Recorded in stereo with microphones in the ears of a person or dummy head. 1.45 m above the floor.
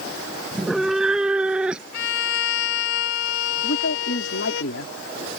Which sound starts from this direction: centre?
A cat meowing, at 0.5 s.